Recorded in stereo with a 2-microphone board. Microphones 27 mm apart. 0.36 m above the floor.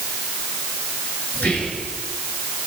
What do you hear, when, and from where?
1.3 s whispering: 75° left (ahead or behind), 5.5 m